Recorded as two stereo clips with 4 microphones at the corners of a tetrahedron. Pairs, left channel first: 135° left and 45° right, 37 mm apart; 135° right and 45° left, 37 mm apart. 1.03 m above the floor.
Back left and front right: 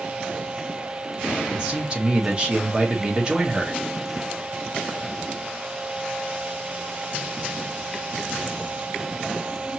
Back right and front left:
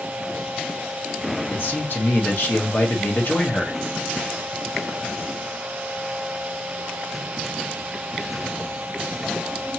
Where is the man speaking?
105° right, 1.5 m.